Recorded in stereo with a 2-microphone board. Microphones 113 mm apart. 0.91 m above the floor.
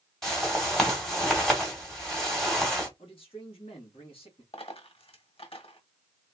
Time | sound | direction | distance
0.2 | a whoosh | 5° left (ahead or behind) | 2 m
3.0 | a man speaking | 55° left (ahead or behind) | 2 m
4.5 | a dropped coin | 55° left (ahead or behind) | 1.5 m